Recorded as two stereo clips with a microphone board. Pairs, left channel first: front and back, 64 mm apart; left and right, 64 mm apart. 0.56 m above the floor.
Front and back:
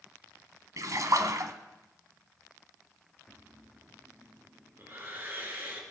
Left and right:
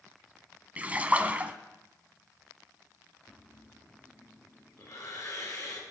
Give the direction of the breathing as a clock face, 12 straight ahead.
8 o'clock.